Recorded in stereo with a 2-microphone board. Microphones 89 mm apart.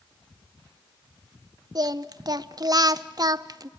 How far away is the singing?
About 0.6 m.